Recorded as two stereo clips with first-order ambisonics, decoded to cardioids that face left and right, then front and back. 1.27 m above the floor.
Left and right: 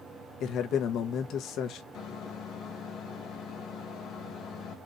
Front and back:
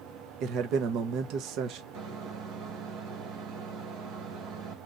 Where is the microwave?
140° left, 1.1 m.